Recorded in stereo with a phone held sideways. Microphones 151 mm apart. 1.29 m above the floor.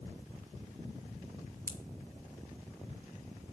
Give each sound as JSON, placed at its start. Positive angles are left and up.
{"t": 1.7, "sound": "a pop", "side_deg": -70, "distance_m": 1.8}